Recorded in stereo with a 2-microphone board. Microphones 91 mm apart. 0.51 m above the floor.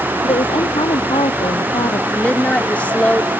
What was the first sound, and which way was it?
A woman speaking, 85° left.